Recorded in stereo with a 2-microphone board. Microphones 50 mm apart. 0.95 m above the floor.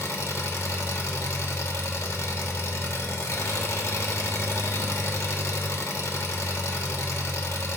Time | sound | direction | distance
0.0 | an engine running | 70° left (ahead or behind) | 1.2 m